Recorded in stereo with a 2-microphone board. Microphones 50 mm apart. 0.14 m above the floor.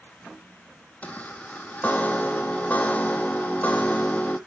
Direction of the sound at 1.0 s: 30° left (ahead or behind).